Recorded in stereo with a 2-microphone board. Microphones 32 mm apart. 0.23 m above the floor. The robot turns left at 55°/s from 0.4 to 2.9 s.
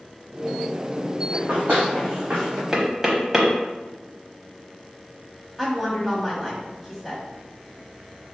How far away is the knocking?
About 0.9 m.